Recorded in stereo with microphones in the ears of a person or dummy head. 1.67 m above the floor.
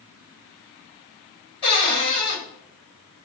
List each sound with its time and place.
1.6 s a cupboard door: 25° left (ahead or behind), 1.2 m